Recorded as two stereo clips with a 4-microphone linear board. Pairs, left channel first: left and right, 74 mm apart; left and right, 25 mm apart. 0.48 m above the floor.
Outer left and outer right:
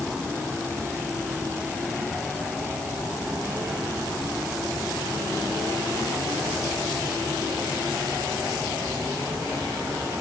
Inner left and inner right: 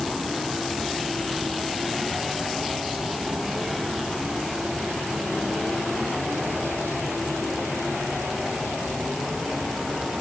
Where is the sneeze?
No sneeze in this recording.